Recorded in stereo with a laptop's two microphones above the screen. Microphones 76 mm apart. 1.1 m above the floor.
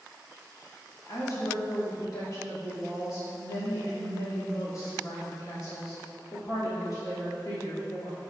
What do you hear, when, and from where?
1.1 s a woman speaking: 50° left (ahead or behind), 2.5 m